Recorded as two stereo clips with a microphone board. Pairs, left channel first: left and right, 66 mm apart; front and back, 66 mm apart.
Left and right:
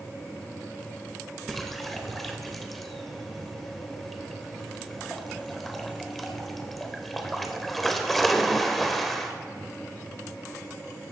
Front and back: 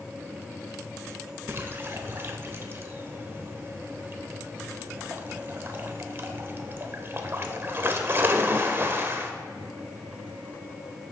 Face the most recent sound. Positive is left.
turn(degrees=175)